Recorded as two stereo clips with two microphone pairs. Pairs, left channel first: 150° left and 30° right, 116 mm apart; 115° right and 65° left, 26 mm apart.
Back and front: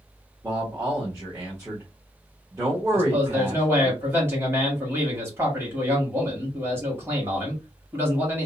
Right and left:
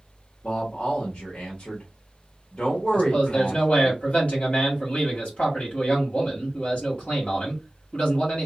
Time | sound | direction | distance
0.4 | a man speaking | 85° right | 1.0 m
2.9 | a man speaking | 95° right | 1.4 m